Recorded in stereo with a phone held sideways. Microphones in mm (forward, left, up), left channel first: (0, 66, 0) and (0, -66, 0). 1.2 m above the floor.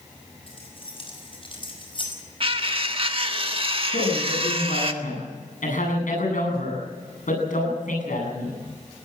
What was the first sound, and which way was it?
Keys jangling, 45° left (ahead or behind).